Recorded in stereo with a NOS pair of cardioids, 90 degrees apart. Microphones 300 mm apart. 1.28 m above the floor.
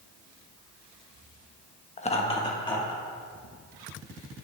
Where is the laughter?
25° left, 1.1 m; by 3.0 s 15° left, 2.5 m.